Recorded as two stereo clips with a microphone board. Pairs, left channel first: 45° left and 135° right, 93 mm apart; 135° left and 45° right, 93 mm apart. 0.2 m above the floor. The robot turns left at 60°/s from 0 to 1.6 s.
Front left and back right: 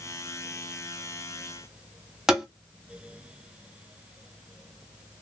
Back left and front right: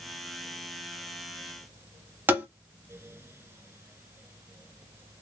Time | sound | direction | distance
2.3 | tapping | 55° right | 0.9 m